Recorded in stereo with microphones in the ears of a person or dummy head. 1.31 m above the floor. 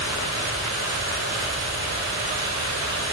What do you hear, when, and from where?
0.0 s a fan: 85° right, 5.5 m